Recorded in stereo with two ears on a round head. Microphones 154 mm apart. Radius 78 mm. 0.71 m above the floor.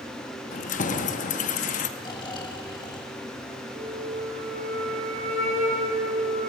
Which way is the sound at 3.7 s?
50° right (ahead or behind).